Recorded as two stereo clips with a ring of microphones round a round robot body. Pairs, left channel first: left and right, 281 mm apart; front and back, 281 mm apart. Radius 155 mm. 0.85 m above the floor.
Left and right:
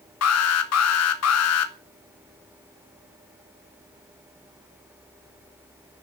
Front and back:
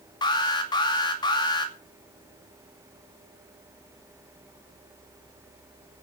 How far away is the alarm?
About 2.5 m.